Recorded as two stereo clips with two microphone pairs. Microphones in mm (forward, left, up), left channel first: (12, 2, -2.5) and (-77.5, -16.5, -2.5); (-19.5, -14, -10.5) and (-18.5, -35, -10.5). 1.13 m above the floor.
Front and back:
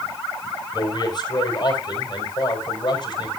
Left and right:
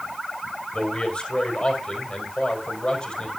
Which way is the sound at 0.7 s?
45° left.